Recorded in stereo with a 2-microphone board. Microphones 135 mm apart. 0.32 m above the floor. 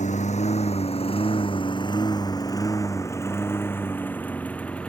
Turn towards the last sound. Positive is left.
turn(degrees=10)  # may be behind; listen again after turning